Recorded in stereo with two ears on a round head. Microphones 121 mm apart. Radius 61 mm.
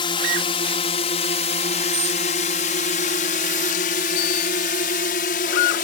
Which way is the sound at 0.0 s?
35° left (ahead or behind).